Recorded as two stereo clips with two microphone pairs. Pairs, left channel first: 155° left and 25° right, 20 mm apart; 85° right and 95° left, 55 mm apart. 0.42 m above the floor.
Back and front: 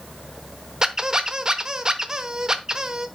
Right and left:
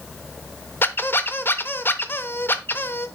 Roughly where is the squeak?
Ahead right.